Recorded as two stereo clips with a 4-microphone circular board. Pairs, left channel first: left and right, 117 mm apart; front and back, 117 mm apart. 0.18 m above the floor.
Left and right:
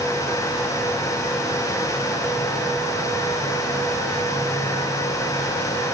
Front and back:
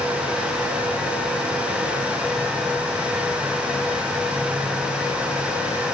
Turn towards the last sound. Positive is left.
No sound to turn to.